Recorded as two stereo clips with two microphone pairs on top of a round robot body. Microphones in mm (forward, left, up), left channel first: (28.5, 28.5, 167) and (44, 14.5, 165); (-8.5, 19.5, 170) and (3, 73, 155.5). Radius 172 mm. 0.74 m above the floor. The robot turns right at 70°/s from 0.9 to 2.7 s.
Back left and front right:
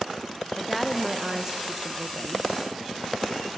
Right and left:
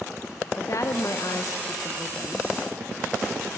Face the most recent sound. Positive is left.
turn(degrees=0)